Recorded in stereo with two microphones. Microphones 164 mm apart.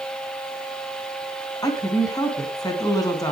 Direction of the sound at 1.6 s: 25° left (ahead or behind).